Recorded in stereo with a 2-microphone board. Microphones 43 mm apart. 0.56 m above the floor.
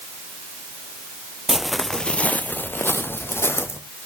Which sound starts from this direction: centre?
Footsteps, at 1.5 s.